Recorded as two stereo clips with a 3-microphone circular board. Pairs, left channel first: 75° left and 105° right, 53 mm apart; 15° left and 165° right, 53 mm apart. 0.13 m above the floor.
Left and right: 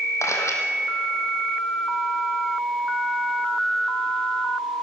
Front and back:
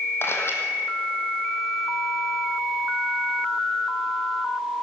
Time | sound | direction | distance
0.2 | a camera shutter | 50° left | 3 m